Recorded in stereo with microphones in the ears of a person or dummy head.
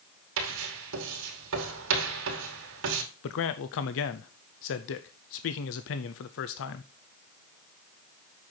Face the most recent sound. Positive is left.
turn(degrees=65)  # may be behind; listen again after turning